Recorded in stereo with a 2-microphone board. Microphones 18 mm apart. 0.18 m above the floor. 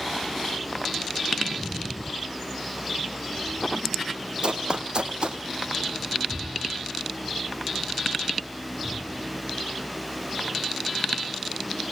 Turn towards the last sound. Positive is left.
turn(degrees=-50)  # may be behind; listen again after turning